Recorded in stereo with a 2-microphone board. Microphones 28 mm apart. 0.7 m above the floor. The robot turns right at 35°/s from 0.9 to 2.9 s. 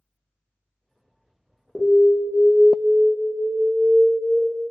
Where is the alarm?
170° left, 0.5 m; by 4.4 s 150° right, 0.5 m.